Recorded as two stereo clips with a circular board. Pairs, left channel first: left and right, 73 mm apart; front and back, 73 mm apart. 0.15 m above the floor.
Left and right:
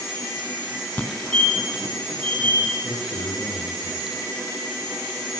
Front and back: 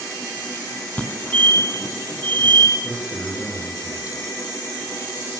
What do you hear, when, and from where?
1.0 s a fire alarm: 40° left, 2.5 m
2.8 s a man speaking: 100° left, 7.5 m